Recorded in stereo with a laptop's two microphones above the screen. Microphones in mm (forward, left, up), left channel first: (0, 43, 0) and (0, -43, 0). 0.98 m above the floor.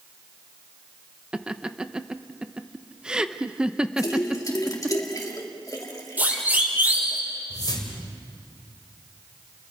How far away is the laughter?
About 0.9 m.